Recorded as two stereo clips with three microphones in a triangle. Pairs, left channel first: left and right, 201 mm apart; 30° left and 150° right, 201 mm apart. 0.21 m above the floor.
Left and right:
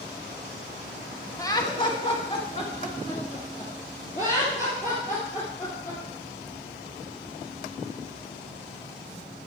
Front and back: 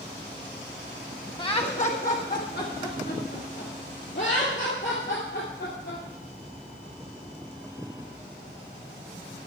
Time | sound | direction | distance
1.4 | laughter | 45° left | 1.1 m